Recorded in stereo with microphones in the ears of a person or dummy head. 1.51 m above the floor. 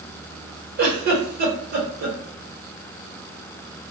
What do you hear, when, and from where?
0.8 s a giggle: 55° right (ahead or behind), 1.0 m